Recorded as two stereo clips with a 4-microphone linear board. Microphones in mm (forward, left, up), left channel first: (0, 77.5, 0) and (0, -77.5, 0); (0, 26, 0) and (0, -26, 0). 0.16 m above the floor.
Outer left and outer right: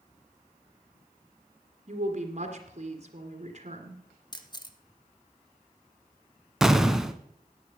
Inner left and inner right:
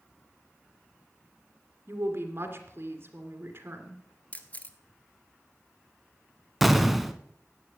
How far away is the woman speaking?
About 2.5 m.